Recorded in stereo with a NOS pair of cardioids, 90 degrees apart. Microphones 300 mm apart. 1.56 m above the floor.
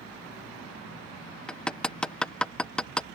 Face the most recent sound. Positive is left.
turn(degrees=5)